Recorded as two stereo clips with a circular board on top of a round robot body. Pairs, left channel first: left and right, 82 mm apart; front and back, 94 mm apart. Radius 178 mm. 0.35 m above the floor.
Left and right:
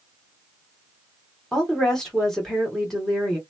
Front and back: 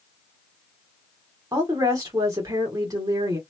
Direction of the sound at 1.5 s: 170° left.